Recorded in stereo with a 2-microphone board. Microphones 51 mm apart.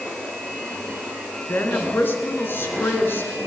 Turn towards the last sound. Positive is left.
turn(degrees=50)  # may be behind; listen again after turning